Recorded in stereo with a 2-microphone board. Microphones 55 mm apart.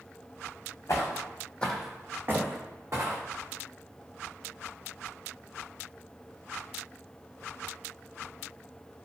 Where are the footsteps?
60° left (ahead or behind), 0.8 m; by 3.2 s 65° right (ahead or behind), 1.3 m.